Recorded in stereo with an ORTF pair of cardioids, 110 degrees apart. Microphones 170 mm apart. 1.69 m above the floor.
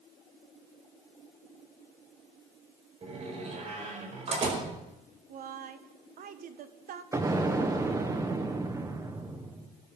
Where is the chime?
No chime in this recording.